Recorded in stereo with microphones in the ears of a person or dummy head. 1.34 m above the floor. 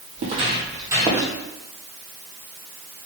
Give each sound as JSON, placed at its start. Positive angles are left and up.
{"t": 0.2, "sound": "footsteps", "side_deg": -40, "distance_m": 2.5}